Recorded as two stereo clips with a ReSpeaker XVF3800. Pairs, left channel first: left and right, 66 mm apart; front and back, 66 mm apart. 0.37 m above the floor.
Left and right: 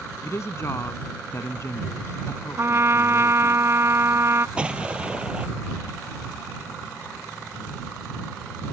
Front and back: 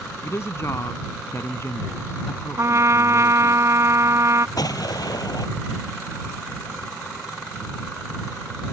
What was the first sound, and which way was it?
A woman speaking, 45° left.